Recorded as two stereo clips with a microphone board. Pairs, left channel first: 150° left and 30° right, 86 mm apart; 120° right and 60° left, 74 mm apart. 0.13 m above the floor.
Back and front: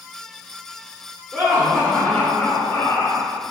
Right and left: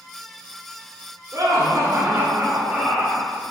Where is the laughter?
40° left, 1.9 m; by 3.3 s 160° left, 1.8 m.